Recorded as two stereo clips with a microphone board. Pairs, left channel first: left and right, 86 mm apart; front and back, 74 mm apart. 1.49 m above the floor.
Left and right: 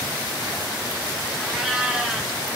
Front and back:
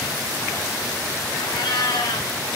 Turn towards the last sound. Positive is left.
turn(degrees=-5)